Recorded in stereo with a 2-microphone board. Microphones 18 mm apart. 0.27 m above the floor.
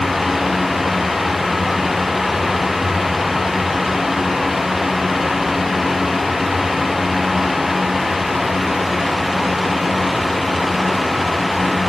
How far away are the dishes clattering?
I don't hear dishes clattering.